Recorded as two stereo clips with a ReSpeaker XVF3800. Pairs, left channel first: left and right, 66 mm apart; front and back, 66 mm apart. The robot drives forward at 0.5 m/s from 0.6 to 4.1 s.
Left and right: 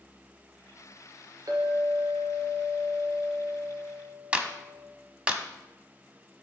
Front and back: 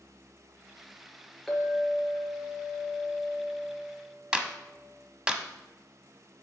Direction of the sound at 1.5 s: 85° right.